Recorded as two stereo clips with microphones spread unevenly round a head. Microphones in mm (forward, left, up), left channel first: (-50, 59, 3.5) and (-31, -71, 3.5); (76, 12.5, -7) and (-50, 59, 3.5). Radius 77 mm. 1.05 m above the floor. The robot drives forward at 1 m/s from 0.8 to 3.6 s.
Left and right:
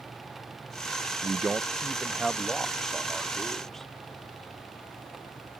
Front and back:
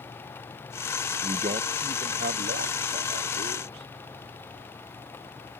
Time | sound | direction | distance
1.2 | a man speaking | 150° right | ?